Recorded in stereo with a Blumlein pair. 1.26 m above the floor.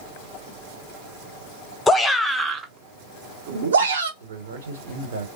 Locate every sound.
1.9 s a shout: 10° left, 0.9 m; by 4.1 s 70° right, 1.3 m
4.2 s a man speaking: 65° right, 1.4 m